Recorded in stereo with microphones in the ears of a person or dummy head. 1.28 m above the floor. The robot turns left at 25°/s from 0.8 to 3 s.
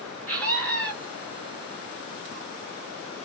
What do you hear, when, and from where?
0.3 s a scream: 5° left (ahead or behind), 0.8 m